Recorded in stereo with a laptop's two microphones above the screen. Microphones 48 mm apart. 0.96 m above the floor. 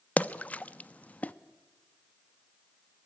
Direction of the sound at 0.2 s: 30° left (ahead or behind).